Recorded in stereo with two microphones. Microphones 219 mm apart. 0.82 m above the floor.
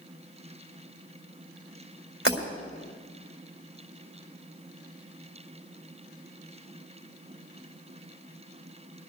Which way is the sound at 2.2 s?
60° right (ahead or behind).